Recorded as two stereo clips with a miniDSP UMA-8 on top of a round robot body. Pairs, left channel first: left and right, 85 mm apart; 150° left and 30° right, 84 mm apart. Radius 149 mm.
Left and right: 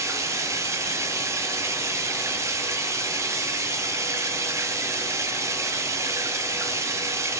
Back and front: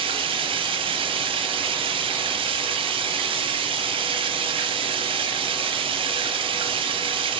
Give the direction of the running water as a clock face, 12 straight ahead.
1 o'clock.